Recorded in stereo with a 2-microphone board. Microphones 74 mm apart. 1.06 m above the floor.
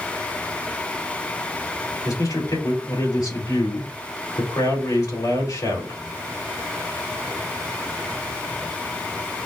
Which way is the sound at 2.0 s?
60° left (ahead or behind).